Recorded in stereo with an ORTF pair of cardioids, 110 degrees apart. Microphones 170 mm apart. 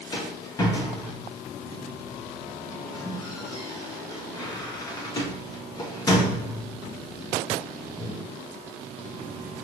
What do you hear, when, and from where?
0.1 s a rattle: 25° left, 1.0 m